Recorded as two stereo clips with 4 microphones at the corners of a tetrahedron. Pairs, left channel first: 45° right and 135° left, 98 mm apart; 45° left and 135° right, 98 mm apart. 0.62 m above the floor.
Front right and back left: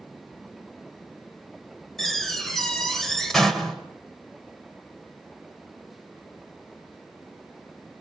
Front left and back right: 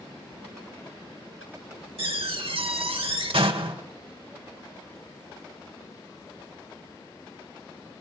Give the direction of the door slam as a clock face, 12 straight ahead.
4 o'clock.